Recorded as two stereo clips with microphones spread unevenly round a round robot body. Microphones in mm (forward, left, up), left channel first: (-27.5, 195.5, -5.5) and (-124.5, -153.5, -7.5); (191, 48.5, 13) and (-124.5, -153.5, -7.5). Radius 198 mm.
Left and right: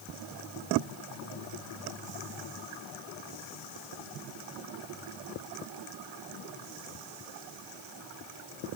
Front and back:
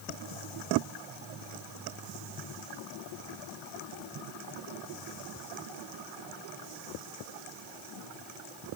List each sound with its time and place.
Only background noise.